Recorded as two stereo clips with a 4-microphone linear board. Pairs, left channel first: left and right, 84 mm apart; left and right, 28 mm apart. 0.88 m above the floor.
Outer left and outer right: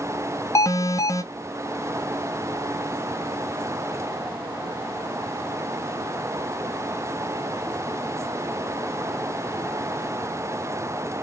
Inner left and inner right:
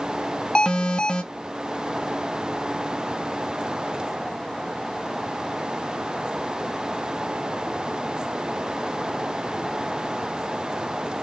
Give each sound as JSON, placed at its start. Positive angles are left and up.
{"t": 0.6, "sound": "an alarm", "side_deg": 40, "distance_m": 0.6}